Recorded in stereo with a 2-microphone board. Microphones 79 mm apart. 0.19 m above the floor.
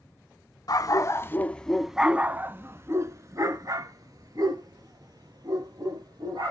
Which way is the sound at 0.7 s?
50° left (ahead or behind).